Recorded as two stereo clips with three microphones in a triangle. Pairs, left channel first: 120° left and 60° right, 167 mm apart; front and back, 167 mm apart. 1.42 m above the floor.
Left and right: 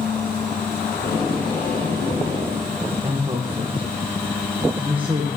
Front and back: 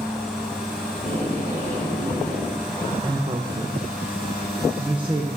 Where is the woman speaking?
120° right, 0.9 m.